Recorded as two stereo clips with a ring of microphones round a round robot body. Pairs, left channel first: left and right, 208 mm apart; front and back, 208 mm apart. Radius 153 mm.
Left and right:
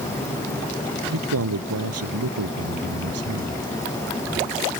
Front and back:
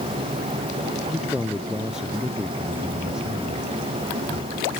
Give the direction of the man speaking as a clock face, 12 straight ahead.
3 o'clock.